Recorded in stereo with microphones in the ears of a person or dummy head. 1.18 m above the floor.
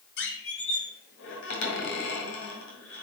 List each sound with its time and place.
0.2 s a squeak: 65° left (ahead or behind), 1.9 m